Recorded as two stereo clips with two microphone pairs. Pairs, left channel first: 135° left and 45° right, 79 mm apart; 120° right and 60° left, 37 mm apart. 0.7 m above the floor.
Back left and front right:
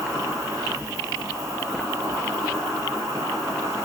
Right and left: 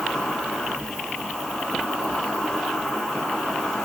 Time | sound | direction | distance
0.0 | an insect | 45° right | 1.3 m